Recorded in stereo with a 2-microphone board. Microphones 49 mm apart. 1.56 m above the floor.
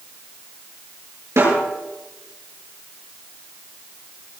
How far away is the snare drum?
About 9 m.